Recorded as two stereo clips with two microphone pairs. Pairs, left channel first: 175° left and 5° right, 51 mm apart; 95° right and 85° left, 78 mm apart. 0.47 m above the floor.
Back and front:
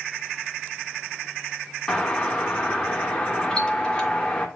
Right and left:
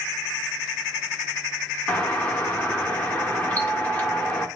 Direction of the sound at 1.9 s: 140° right.